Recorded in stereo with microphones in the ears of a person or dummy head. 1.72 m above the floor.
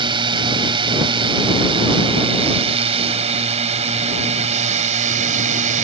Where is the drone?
25° right (ahead or behind); by 5.8 s 40° right (ahead or behind).